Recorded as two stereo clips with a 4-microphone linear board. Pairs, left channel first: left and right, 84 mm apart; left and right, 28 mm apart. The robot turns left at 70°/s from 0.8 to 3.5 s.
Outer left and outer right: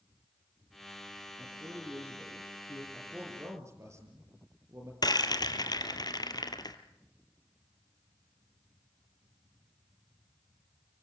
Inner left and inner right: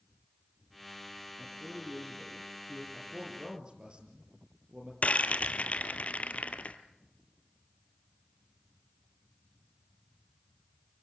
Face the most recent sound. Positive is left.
turn(degrees=55)  # may be behind; listen again after turning